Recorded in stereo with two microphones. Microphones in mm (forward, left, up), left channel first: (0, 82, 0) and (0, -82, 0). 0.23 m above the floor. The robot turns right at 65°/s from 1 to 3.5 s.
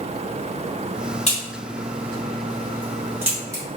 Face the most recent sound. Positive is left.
turn(degrees=-20)  # may be behind; listen again after turning